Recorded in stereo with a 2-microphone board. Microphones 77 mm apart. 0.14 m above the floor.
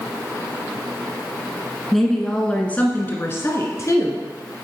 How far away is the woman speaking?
About 1.3 m.